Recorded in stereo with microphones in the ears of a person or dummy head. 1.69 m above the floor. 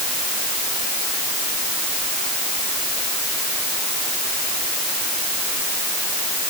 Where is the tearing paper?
I don't hear tearing paper.